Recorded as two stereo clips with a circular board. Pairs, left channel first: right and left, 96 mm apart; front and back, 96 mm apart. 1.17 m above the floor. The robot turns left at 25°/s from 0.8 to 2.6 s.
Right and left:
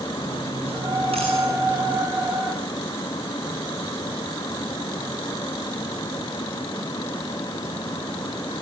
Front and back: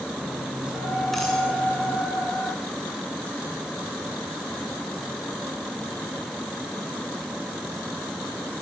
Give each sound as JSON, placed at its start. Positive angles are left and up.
{"t": 0.2, "sound": "cutlery clinking", "azimuth_deg": 100, "distance_m": 7.5}